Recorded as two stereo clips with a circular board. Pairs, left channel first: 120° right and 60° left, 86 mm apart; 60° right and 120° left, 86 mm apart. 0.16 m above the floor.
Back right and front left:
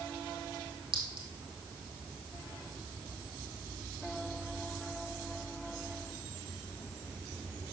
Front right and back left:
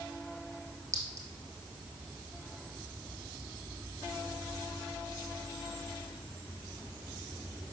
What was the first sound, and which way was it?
A clink, 65° left.